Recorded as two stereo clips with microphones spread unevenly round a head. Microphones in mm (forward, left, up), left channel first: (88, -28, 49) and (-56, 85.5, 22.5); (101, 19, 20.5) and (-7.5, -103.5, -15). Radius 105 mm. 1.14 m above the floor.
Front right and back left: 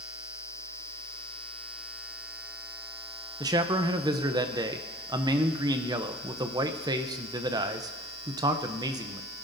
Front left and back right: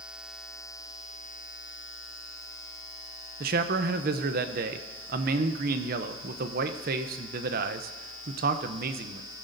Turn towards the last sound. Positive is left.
turn(degrees=-150)